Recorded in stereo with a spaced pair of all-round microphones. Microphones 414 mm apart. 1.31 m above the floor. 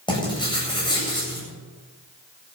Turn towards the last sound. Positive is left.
turn(degrees=10)  # may be behind; listen again after turning